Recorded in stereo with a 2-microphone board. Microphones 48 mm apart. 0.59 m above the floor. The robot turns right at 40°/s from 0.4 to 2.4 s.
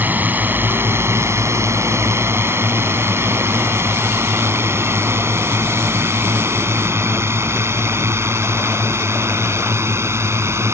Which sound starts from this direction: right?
A drone, at 0.0 s.